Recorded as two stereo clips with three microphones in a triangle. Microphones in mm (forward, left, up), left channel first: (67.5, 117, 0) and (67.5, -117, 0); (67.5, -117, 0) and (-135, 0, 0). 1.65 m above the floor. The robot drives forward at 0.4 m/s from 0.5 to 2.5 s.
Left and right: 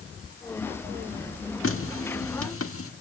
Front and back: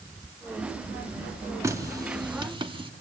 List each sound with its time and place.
1.6 s a running tap: 75° left, 2 m; by 2.9 s 85° left, 2 m